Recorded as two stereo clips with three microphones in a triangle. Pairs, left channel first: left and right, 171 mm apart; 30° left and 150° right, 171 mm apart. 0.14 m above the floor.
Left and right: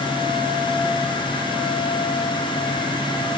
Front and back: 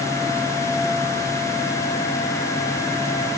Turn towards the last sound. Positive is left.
No sound to turn to.